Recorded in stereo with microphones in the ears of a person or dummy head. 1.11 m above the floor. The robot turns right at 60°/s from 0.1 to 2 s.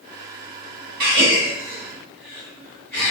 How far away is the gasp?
About 1.7 m.